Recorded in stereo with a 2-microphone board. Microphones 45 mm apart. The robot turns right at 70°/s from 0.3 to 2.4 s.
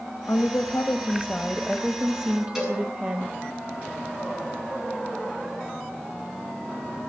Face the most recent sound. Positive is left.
turn(degrees=-5)  # may be behind; listen again after turning